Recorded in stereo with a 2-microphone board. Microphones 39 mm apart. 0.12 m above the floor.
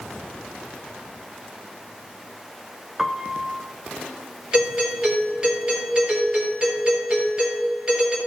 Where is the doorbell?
25° right (ahead or behind), 2.5 m.